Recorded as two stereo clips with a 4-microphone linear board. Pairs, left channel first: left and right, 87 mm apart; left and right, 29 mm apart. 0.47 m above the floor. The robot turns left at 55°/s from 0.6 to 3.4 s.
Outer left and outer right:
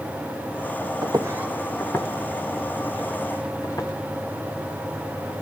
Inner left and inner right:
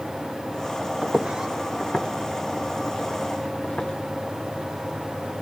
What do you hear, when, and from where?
1.0 s footsteps: 55° right (ahead or behind), 1.1 m; by 3.9 s 40° left (ahead or behind), 3 m